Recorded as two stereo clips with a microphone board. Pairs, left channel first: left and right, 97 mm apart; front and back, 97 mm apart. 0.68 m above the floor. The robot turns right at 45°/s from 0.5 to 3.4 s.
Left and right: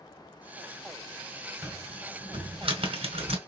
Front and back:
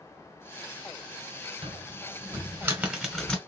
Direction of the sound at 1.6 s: 160° right.